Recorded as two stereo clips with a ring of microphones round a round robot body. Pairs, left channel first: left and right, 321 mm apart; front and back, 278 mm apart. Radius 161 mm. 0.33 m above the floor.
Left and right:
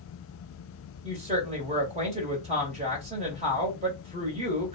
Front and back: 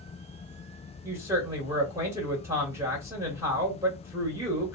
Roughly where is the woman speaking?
Behind right.